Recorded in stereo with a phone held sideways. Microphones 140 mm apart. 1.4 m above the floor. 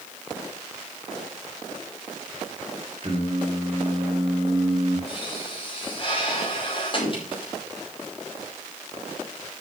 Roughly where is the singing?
Right.